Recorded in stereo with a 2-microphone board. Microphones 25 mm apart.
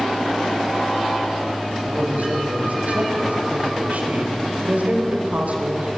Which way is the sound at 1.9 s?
75° right (ahead or behind).